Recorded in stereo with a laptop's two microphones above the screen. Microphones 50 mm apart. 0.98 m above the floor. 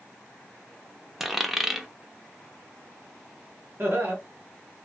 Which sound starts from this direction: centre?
A dropped coin, at 1.2 s.